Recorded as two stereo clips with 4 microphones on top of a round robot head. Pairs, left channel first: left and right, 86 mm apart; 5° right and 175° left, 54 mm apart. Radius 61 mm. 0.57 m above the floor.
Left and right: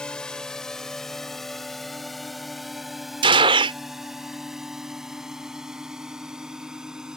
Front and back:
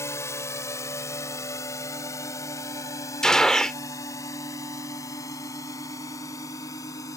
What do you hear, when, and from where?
0.0 s a drone: 10° left; by 7.2 s 10° right
3.2 s a gunshot: 85° right